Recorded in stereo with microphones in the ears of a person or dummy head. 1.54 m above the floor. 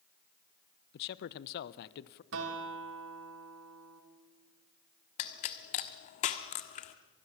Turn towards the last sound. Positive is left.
turn(degrees=40)  # may be behind; listen again after turning